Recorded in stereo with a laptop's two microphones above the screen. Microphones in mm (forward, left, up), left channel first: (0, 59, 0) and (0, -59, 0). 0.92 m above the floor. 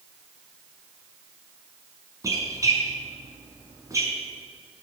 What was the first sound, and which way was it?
A squeak, 30° right (ahead or behind).